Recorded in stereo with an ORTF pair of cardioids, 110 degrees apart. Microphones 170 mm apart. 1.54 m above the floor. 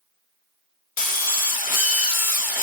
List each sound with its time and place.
1.0 s a drill: 55° left, 1.0 m